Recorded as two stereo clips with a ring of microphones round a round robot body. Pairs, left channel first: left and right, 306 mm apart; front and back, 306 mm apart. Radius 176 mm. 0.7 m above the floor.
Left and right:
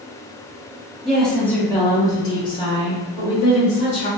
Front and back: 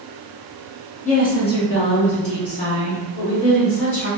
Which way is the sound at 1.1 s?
Straight ahead.